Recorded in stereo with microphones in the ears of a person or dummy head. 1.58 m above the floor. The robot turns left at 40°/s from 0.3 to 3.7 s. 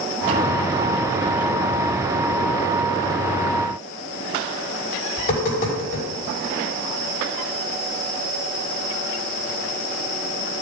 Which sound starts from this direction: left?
Tapping, at 5.2 s.